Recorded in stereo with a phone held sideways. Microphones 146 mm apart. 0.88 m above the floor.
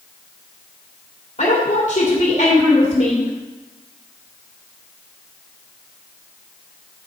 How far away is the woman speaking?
About 2.5 m.